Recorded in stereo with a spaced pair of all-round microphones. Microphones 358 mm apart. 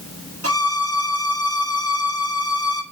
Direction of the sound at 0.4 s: 40° right (ahead or behind).